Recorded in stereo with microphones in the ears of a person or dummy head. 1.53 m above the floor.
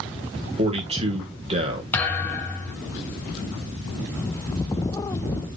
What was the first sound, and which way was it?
A man speaking, 35° right (ahead or behind).